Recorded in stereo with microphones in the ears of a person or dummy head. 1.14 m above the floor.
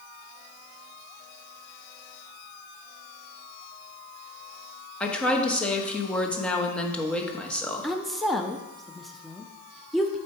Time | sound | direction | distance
5.0 | a woman speaking | 5° left (ahead or behind) | 1.1 m
7.8 | a woman speaking | centre (ahead or behind) | 0.6 m